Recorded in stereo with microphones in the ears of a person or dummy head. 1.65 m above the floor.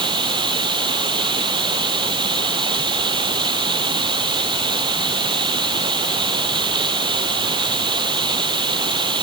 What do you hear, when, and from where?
0.0 s running water: 30° right (ahead or behind)